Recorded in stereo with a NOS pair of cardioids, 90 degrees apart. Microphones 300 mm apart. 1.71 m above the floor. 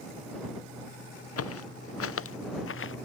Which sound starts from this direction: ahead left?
Footsteps, at 1.4 s.